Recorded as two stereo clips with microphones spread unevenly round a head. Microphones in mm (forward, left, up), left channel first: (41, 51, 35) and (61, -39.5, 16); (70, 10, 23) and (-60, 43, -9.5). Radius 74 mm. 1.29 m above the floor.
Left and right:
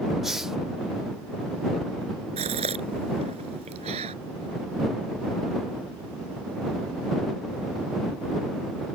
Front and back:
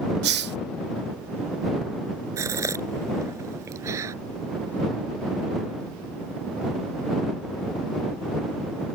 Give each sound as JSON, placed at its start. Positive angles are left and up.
{"t": 0.2, "sound": "a hiss", "azimuth_deg": -170}
{"t": 2.4, "sound": "a gasp", "azimuth_deg": -120}